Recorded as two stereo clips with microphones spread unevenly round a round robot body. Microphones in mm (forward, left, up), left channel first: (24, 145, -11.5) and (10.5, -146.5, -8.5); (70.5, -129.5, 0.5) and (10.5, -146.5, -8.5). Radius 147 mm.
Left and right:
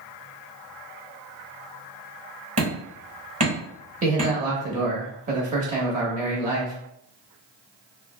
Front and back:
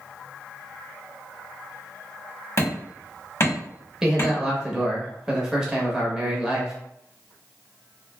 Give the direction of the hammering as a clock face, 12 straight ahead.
1 o'clock.